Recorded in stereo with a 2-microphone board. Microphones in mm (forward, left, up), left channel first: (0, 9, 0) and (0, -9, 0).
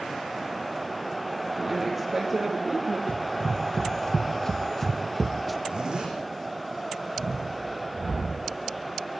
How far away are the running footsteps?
About 2 m.